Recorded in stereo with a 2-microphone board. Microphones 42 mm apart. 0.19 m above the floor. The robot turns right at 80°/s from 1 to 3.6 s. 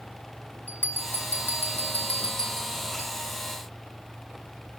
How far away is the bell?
About 2.0 m.